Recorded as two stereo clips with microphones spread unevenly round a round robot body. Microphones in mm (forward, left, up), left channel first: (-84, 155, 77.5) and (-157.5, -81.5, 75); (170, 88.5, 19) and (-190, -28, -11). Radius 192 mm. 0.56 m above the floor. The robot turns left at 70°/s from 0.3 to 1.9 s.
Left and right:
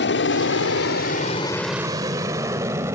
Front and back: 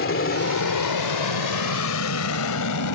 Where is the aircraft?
65° left; by 3.0 s 25° right.